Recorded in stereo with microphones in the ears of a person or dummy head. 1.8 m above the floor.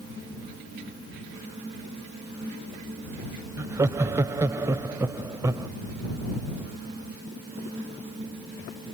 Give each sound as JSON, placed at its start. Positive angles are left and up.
{"t": 3.6, "sound": "laughter", "side_deg": -15}